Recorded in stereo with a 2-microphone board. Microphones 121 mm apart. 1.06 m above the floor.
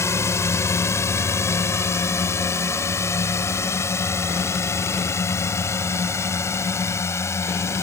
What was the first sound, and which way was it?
A drone, 25° left (ahead or behind).